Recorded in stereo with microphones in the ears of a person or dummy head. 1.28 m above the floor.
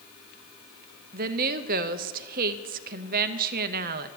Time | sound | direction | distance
1.1 | a woman speaking | 35° right (ahead or behind) | 0.6 m